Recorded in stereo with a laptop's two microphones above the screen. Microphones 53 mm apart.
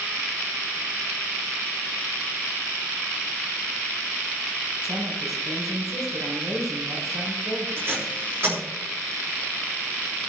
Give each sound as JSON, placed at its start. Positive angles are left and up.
{"t": 4.8, "sound": "a woman speaking", "side_deg": -80, "distance_m": 5.5}
{"t": 7.8, "sound": "tape being pulled", "side_deg": -45, "distance_m": 3.5}